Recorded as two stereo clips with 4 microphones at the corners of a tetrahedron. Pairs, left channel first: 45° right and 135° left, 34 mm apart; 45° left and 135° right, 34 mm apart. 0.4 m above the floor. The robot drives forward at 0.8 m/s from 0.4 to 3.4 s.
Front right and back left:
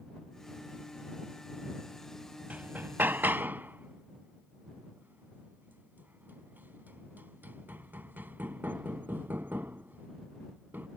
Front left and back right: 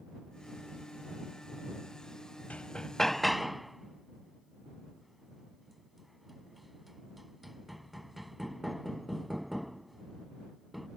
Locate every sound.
2.5 s hammering: 90° left; by 10.9 s 140° left